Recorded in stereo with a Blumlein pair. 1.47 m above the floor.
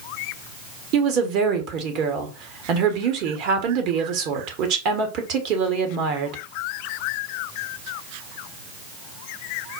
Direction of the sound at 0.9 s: 40° right.